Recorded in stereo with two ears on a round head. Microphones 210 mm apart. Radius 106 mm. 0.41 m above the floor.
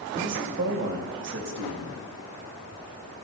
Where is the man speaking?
55° right (ahead or behind), 2.5 m.